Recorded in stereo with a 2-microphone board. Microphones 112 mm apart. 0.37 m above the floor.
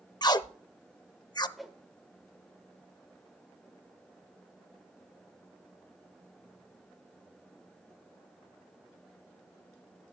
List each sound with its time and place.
0.2 s tape being pulled: 35° left (ahead or behind), 0.5 m
1.6 s a whoosh: centre (ahead or behind), 1.3 m